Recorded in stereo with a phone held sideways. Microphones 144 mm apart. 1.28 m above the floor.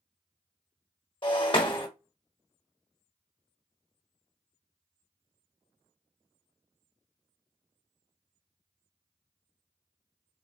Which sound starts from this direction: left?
Breaking glass, at 1.2 s.